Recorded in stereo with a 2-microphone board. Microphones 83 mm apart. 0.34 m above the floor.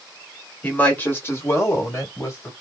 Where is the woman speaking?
20° left (ahead or behind), 1.3 m; by 2.5 s 35° left (ahead or behind), 1.8 m.